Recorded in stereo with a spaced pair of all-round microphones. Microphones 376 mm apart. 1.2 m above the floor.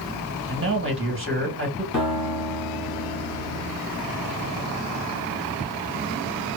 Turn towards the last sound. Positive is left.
turn(degrees=50)  # may be behind; listen again after turning